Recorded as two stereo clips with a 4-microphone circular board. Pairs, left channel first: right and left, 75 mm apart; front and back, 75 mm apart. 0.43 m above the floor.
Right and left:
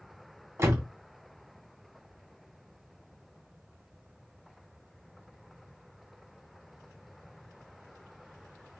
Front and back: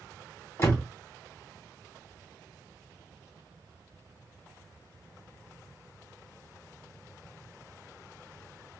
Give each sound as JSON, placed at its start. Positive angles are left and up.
{"t": 0.6, "sound": "a door slam", "azimuth_deg": 50, "distance_m": 1.7}